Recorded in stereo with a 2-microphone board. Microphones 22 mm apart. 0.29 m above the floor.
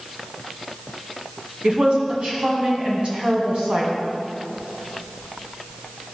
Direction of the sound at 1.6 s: 60° right (ahead or behind).